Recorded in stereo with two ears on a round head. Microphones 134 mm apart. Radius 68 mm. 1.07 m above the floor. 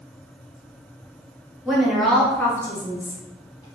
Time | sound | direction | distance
1.6 | a woman speaking | 5° right (ahead or behind) | 0.8 m